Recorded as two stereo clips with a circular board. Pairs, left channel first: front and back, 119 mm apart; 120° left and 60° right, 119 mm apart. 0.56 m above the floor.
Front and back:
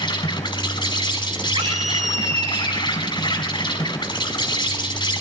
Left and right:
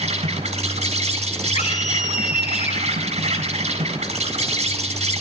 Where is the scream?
150° left, 4 m.